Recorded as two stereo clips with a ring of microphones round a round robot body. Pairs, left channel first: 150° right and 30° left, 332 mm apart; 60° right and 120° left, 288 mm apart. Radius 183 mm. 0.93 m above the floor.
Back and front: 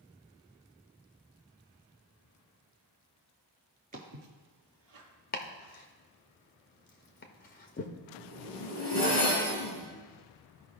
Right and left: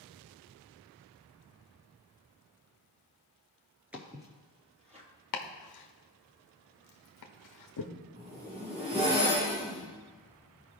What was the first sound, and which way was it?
Footsteps, 40° left.